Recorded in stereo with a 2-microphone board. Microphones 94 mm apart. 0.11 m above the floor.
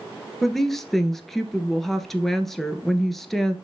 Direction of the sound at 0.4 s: Centre (ahead or behind).